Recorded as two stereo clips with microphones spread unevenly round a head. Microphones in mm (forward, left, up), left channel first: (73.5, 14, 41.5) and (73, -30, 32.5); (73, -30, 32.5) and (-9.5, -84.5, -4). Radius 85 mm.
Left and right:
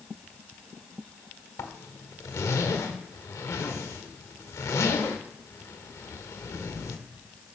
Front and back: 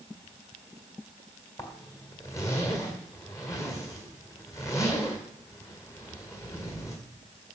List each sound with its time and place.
1.6 s a zipper: 105° left, 1.4 m